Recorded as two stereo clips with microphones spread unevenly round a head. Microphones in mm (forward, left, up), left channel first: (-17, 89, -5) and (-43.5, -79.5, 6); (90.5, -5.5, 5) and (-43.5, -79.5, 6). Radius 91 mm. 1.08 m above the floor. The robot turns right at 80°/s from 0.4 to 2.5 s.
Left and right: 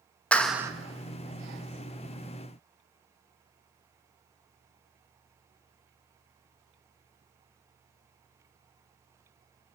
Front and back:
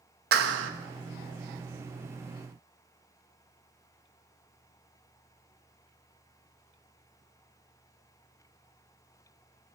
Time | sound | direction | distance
0.3 | a clap | 165° left | 0.9 m